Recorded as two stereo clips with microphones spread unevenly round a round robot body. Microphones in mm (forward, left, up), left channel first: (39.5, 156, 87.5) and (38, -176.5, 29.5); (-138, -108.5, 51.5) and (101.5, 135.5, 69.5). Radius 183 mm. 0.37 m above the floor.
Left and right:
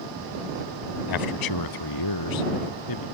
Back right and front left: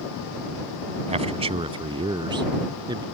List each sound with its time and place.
1.1 s a man speaking: 120° left; by 3.0 s 125° left